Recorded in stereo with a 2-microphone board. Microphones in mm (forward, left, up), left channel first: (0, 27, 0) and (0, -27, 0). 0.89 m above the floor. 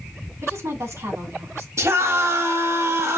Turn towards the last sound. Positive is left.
turn(degrees=-65)  # may be behind; listen again after turning